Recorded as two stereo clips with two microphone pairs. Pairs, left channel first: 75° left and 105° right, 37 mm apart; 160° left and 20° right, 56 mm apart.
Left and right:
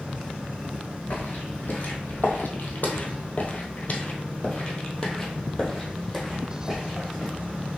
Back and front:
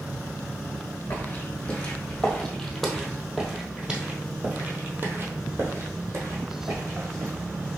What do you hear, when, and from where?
1.1 s footsteps: 105° left, 1.8 m; by 7.3 s 15° right, 2 m